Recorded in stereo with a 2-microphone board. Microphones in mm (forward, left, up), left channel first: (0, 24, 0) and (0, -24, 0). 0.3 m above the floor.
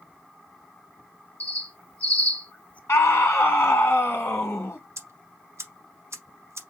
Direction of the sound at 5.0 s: 75° right (ahead or behind).